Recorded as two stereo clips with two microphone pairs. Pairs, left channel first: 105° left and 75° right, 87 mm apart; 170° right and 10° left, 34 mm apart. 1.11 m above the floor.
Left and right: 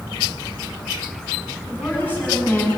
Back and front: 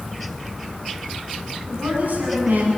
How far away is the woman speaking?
About 9 m.